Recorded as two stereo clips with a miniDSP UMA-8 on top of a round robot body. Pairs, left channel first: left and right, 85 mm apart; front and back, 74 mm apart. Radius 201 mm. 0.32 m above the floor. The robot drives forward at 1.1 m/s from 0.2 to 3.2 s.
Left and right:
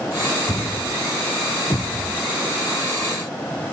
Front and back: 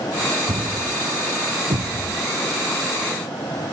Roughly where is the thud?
Behind left.